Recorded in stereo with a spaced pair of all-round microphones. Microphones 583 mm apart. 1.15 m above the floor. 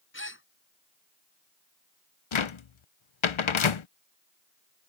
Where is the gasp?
20° left (ahead or behind).